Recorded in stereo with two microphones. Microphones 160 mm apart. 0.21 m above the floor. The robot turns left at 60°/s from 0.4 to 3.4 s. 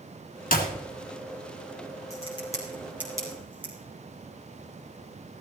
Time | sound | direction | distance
0.5 | a clap | 60° left (ahead or behind) | 2 m
2.1 | a crack | 45° left (ahead or behind) | 5 m